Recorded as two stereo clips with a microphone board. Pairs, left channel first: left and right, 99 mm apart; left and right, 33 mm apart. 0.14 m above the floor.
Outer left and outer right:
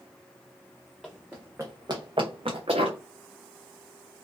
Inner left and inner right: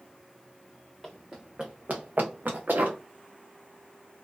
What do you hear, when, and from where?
1.0 s running footsteps: 5° right (ahead or behind), 1.0 m; by 3.0 s 85° right, 1.2 m